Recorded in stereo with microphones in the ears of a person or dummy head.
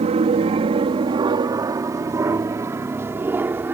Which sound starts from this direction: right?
An aircraft, at 0.0 s.